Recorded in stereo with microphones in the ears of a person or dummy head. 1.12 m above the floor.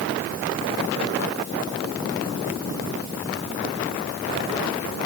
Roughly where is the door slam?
I don't hear a door slam.